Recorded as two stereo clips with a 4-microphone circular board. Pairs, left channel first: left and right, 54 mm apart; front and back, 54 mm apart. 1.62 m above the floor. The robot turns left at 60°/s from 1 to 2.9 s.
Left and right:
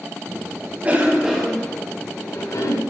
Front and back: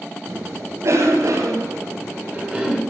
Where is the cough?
150° right, 7.5 m; by 2.8 s 100° left, 7.5 m.